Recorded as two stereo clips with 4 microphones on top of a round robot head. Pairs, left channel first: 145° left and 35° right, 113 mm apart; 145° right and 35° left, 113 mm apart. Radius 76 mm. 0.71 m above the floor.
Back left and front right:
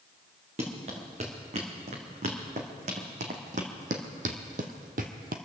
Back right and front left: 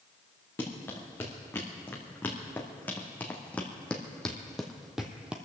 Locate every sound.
0.6 s running footsteps: 70° right, 3.5 m; by 5.4 s 40° right, 1.1 m